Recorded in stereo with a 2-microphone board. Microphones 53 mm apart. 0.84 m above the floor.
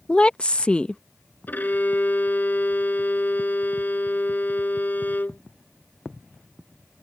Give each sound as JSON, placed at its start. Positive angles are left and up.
{"t": 0.1, "sound": "a woman speaking", "side_deg": 20}
{"t": 1.5, "sound": "a violin", "side_deg": 35}